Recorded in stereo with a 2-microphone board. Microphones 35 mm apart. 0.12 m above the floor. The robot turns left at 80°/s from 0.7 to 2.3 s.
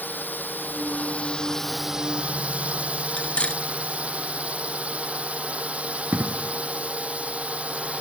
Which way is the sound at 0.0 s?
85° left.